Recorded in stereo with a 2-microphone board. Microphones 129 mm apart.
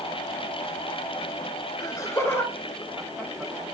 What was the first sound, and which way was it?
Laughter, 30° left (ahead or behind).